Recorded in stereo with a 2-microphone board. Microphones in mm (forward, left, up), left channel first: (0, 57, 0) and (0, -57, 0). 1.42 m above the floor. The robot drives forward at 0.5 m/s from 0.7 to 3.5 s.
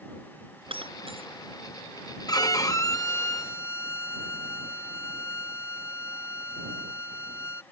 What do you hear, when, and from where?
0.7 s breaking glass: 50° right (ahead or behind); by 1.3 s 55° right (ahead or behind)
2.3 s a violin: 35° left (ahead or behind); by 7.6 s 25° left (ahead or behind)